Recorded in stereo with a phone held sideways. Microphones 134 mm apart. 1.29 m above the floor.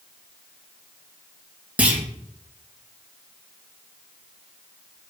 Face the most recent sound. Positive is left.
turn(degrees=-10)  # may be behind; listen again after turning